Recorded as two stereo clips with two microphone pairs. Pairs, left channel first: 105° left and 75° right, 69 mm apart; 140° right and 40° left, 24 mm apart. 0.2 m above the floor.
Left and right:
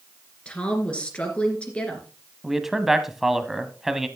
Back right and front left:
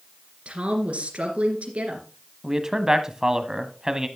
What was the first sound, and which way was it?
A woman speaking, 35° left.